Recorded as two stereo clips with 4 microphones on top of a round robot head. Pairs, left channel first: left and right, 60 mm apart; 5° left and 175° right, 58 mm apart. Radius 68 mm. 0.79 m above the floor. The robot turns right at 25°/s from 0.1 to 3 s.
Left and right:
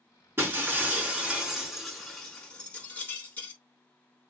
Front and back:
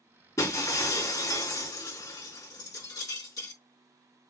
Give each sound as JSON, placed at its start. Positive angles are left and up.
{"t": 0.4, "sound": "breaking glass", "azimuth_deg": -40, "distance_m": 4.0}